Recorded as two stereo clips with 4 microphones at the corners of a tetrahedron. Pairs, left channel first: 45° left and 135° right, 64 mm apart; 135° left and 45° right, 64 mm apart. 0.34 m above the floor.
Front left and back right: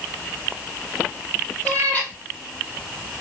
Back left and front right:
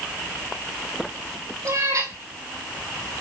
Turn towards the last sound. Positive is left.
turn(degrees=-15)